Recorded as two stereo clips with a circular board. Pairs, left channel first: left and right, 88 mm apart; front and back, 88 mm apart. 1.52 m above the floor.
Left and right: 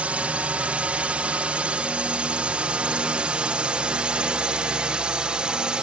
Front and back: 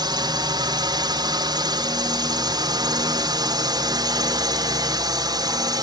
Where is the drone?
160° right; by 5.8 s 165° right.